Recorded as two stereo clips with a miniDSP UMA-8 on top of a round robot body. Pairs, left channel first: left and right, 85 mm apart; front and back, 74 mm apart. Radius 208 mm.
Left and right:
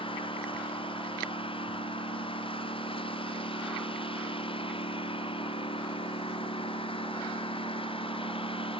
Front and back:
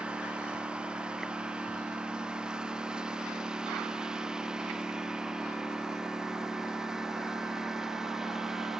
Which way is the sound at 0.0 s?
105° left.